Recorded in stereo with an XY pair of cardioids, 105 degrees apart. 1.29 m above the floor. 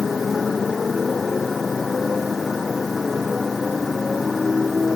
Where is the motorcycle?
35° left; by 5.0 s 30° left.